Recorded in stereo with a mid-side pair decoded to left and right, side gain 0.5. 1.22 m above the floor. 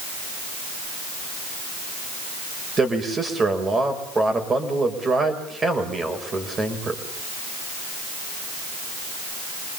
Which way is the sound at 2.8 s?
30° right.